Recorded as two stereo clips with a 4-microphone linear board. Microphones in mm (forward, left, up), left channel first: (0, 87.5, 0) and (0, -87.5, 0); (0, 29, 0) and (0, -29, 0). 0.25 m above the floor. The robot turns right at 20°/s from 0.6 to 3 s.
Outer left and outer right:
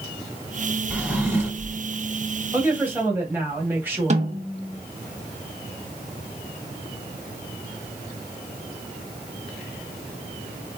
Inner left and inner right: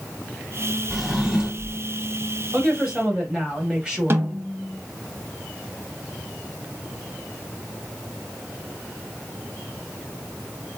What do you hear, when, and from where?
0.9 s a drawer: 10° right (ahead or behind), 0.9 m; by 1.8 s 20° right (ahead or behind), 0.9 m
2.5 s a woman speaking: 10° right (ahead or behind), 1.3 m
4.1 s a snare drum: 45° right (ahead or behind), 0.7 m